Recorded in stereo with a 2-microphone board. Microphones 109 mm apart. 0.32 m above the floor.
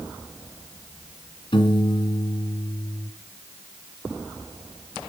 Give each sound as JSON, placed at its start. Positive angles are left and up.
{"t": 1.5, "sound": "a piano", "side_deg": 55, "distance_m": 2.0}